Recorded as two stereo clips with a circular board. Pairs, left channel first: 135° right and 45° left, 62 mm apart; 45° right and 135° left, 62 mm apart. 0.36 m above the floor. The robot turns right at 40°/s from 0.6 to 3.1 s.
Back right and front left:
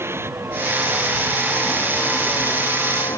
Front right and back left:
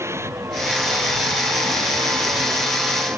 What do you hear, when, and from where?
0.0 s a vehicle: 95° left; by 3.2 s 165° right